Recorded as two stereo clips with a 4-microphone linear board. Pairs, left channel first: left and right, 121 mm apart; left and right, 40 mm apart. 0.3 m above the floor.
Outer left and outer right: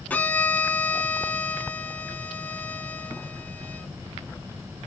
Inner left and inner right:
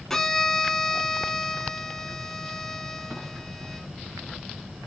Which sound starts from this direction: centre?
A violin, at 0.1 s.